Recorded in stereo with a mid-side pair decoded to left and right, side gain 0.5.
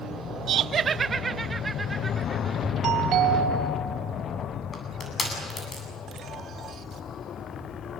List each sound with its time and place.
0.5 s laughter: 65° right, 0.7 m; by 2.7 s 15° right, 2.5 m
2.8 s a doorbell: 70° right, 3.5 m
4.7 s crushing: 35° left, 8.5 m